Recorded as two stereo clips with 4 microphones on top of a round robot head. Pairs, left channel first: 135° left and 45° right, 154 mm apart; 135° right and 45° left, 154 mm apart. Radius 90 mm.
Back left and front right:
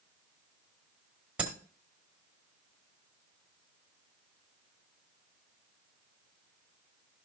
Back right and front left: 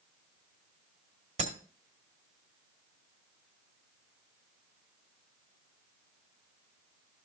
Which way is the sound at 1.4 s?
35° left.